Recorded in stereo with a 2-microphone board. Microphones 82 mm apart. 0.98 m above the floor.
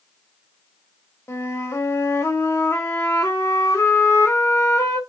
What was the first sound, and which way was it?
A flute, 30° left (ahead or behind).